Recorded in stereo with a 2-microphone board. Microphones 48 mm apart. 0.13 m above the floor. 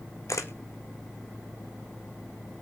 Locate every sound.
0.3 s a camera shutter: 85° left, 1.4 m